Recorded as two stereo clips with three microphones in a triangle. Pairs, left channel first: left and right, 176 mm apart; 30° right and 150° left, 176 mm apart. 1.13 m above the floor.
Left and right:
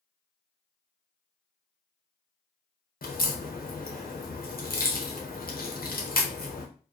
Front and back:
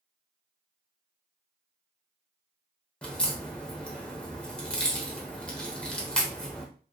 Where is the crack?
55° left, 0.6 m.